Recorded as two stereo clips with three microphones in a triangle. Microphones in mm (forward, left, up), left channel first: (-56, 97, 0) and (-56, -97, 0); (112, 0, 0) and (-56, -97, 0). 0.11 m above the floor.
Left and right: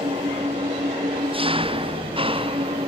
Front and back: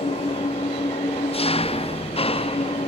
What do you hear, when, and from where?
0.0 s an engine running: 30° right